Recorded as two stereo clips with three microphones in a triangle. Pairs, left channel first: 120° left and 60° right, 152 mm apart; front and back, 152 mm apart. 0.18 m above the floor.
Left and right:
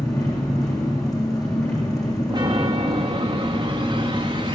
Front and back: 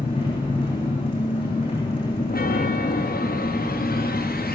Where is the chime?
Straight ahead, 3.5 m.